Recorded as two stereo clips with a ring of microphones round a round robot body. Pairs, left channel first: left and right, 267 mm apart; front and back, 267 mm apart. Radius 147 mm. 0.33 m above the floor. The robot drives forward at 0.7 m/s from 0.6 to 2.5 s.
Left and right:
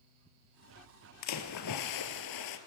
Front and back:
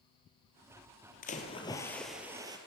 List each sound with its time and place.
1.2 s a splash: 65° left, 1.4 m; by 2.6 s 100° left, 1.3 m